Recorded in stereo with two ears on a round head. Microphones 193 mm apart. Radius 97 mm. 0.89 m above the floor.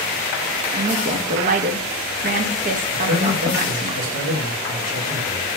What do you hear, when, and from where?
0.7 s a woman speaking: 40° right (ahead or behind), 0.8 m
2.9 s a man speaking: 65° right (ahead or behind), 1.8 m